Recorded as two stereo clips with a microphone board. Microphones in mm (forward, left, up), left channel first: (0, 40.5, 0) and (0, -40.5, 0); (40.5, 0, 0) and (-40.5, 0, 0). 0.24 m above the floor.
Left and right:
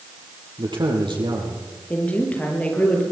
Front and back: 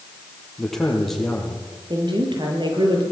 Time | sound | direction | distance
0.6 | a man speaking | 85° right | 7 m
1.9 | a woman speaking | 160° left | 6.5 m